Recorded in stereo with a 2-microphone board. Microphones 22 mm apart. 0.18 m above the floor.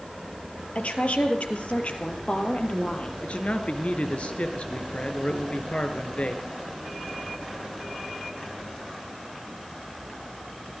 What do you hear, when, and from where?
0.8 s a woman speaking: 70° left (ahead or behind), 4 m; by 3.1 s 55° left (ahead or behind), 5 m
3.2 s a man speaking: 60° left (ahead or behind), 3 m